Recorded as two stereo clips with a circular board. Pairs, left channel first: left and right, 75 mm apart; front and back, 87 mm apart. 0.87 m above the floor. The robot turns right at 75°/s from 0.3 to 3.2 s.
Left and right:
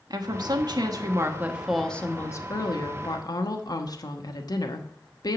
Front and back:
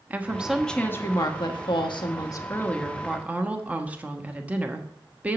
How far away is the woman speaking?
About 1.2 m.